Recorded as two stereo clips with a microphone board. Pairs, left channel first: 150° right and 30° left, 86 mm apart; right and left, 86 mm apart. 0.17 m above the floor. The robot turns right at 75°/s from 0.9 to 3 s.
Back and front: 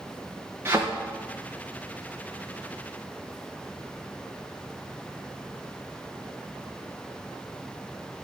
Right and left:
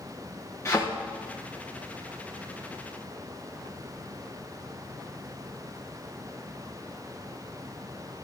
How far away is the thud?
About 5 m.